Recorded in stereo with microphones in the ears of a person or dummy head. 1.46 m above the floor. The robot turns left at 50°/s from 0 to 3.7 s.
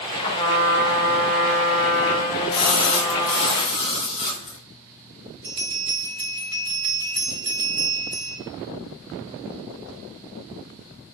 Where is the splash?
100° left, 1.8 m; by 4.6 s 40° left, 1.8 m.